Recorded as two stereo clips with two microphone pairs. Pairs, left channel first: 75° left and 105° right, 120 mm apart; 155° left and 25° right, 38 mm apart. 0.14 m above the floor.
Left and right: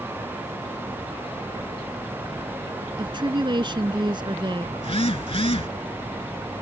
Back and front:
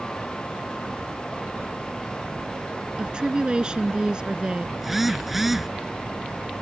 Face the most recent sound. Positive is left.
turn(degrees=60)